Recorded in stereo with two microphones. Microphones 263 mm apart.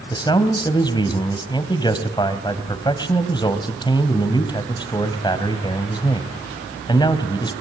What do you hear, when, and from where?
0.1 s a man speaking: 15° left (ahead or behind), 2.5 m